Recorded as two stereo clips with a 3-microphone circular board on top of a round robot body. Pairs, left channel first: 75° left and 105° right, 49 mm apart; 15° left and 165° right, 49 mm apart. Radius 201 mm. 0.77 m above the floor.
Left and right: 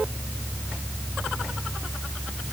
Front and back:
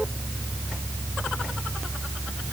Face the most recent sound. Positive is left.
No sound to turn to.